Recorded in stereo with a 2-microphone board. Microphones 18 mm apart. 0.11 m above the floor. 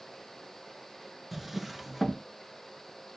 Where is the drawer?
20° right (ahead or behind), 0.6 m.